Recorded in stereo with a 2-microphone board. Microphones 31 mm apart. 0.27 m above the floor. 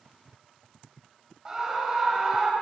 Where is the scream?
20° right (ahead or behind), 1.2 m.